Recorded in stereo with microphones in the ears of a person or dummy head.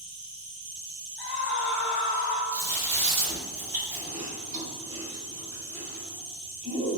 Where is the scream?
60° left (ahead or behind), 0.7 m.